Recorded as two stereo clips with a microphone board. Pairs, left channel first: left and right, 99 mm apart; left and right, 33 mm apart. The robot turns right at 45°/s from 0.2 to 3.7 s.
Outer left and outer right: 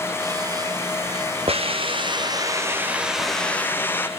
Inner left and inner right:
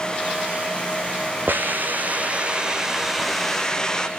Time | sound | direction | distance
1.5 | a hiss | 80° right | 1.5 m